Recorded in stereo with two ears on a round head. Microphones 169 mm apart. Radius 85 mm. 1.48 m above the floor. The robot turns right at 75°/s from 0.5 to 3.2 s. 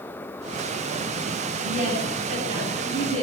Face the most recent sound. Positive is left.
turn(degrees=-30)